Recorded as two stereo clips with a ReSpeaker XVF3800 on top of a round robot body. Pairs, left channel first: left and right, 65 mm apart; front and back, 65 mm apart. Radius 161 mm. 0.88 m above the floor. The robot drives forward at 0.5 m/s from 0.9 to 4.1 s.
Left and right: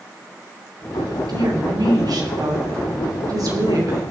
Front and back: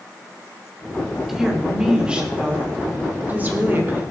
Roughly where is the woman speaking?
Right.